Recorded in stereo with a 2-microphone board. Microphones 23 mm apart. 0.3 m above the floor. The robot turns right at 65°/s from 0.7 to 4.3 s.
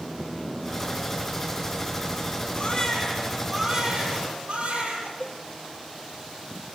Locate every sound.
2.5 s a baby crying: 140° left, 8 m; by 5.1 s 105° right, 8 m
5.2 s a cowbell: 40° left (ahead or behind), 1.6 m